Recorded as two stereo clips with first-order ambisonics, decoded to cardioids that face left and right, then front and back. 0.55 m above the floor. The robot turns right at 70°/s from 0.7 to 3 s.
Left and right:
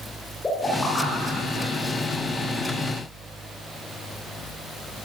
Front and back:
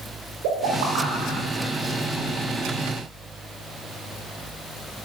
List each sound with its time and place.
0.4 s a pop: 170° left, 9 m; by 1.7 s 120° right, 9 m